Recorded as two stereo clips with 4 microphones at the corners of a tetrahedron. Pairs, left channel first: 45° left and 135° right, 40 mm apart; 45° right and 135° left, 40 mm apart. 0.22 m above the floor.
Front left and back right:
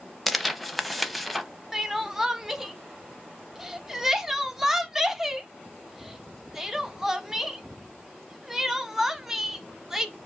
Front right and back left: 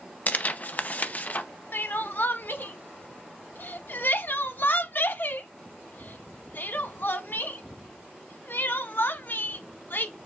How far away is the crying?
About 0.6 m.